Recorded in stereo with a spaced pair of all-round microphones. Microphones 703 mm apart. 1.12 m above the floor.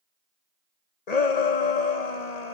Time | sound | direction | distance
1.1 | a shout | 60° left (ahead or behind) | 1.1 m